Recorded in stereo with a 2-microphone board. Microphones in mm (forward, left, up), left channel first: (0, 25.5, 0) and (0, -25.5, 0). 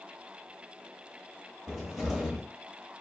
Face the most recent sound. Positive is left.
turn(degrees=-5)  # may be behind; listen again after turning